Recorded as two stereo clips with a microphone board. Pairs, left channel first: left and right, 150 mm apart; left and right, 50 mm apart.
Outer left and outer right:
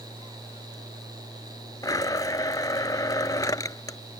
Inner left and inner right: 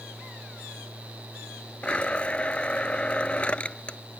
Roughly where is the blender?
Left.